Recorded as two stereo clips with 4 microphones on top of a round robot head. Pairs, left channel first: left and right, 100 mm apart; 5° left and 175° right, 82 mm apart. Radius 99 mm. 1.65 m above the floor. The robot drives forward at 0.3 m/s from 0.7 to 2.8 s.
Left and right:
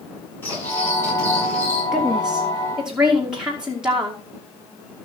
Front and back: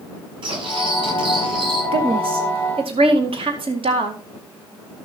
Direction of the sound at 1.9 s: 175° right.